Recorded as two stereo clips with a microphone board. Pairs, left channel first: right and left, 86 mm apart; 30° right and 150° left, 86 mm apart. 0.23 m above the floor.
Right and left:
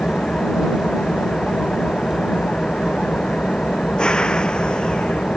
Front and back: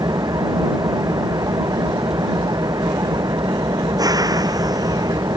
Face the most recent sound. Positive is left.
turn(degrees=-170)